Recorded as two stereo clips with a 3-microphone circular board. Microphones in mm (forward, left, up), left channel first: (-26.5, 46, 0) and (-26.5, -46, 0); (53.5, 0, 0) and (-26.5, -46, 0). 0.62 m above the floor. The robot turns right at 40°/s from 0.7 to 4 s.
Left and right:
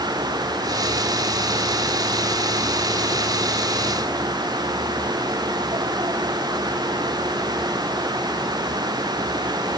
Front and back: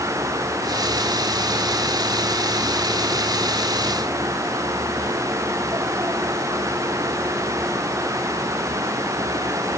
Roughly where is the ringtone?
No ringtone in this recording.